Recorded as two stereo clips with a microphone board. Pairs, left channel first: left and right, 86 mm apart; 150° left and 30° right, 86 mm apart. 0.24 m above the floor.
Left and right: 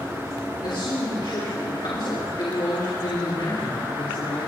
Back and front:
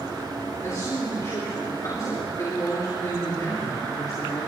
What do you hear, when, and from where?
0.6 s a man speaking: 100° left, 4 m